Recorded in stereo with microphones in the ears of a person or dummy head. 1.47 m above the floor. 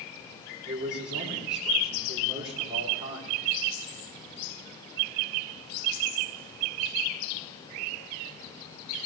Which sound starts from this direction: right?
A man speaking, at 0.7 s.